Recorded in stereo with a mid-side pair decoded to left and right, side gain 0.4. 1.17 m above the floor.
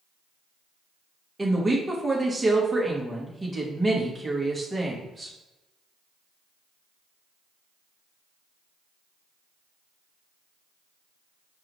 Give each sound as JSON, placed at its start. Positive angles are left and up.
{"t": 1.4, "sound": "a woman speaking", "azimuth_deg": -25, "distance_m": 1.7}